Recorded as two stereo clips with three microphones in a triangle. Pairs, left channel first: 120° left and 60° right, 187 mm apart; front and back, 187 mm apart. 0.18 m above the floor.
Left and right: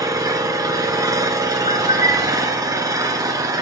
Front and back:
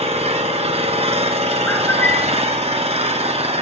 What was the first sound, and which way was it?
An engine running, 130° right.